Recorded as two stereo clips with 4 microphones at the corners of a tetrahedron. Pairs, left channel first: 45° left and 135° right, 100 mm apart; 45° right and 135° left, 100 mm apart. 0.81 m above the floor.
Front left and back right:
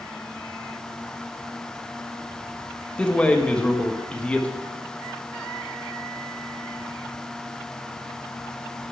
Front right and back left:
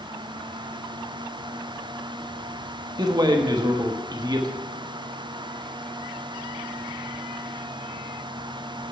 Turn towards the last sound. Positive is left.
turn(degrees=120)